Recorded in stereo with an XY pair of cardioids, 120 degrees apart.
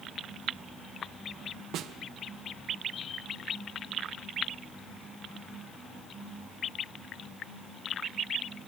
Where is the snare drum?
65° right, 1.3 m.